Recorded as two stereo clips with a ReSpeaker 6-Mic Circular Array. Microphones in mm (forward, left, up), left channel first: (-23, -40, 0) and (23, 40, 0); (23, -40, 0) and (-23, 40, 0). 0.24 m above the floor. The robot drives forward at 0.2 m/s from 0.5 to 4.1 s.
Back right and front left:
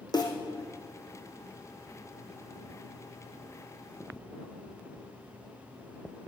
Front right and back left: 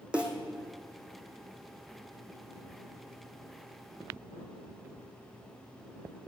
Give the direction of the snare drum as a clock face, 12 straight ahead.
5 o'clock.